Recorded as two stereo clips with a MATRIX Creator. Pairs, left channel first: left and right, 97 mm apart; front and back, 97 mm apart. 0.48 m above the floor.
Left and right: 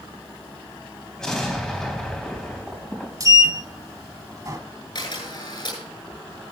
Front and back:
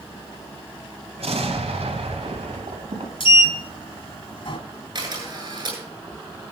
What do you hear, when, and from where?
1.2 s an explosion: 175° left, 3.5 m
3.2 s a sliding door: 35° right, 1.4 m
5.0 s a camera shutter: 130° left, 9 m